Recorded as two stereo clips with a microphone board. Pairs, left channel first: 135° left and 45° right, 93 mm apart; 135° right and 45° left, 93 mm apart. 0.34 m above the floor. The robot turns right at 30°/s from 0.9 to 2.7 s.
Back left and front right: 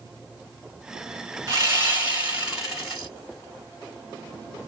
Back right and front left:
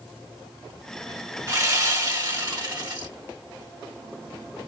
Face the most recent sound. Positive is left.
turn(degrees=35)